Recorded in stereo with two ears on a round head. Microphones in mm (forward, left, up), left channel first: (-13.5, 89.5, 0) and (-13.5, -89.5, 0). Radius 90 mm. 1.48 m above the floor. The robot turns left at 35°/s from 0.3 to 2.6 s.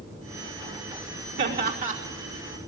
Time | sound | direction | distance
1.4 | laughter | 60° right (ahead or behind) | 5 m